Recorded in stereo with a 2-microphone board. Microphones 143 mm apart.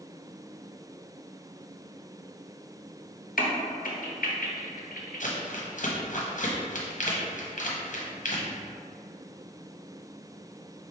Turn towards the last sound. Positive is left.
turn(degrees=65)  # may be behind; listen again after turning